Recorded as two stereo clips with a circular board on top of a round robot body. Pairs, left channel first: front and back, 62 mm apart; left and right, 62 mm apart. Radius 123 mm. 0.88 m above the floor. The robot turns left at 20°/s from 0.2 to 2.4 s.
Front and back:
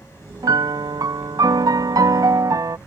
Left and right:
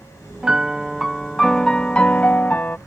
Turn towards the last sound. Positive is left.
turn(degrees=155)